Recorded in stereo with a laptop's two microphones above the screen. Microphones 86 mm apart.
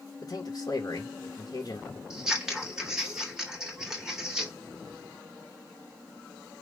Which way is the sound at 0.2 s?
50° left (ahead or behind).